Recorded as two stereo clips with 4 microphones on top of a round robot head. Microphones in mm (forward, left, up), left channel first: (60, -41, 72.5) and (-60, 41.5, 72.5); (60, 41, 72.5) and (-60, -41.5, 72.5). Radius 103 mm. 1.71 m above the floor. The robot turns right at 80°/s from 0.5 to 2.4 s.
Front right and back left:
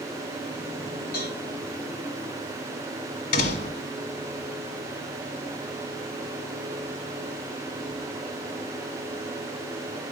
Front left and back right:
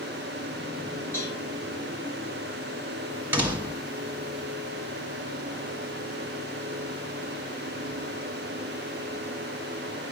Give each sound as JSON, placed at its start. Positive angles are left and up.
{"t": 1.1, "sound": "a cowbell", "azimuth_deg": -45, "distance_m": 8.0}
{"t": 3.3, "sound": "a door slam", "azimuth_deg": -70, "distance_m": 1.4}